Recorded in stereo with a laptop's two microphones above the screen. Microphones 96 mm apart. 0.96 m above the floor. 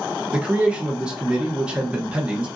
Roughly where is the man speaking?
Centre.